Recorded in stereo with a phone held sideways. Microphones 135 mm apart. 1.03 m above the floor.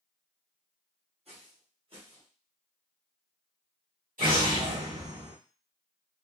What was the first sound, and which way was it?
Footsteps, 55° right (ahead or behind).